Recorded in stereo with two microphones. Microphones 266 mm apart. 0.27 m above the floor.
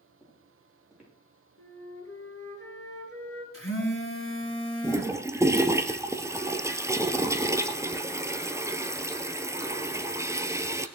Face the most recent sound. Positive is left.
turn(degrees=-10)  # may be behind; listen again after turning